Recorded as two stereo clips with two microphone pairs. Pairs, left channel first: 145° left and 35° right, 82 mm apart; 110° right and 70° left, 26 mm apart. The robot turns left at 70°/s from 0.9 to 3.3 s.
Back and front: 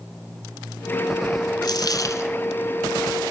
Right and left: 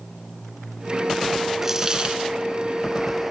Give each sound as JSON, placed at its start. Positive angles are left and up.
{"t": 1.6, "sound": "a dropped coin", "azimuth_deg": 145, "distance_m": 0.7}